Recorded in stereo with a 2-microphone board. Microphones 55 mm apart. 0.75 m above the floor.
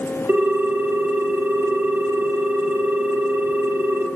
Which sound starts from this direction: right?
A ringtone, at 0.3 s.